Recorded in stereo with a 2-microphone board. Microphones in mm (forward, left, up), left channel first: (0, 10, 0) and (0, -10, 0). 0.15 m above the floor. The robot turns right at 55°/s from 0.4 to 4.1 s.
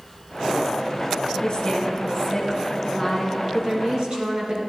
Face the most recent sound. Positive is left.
turn(degrees=-110)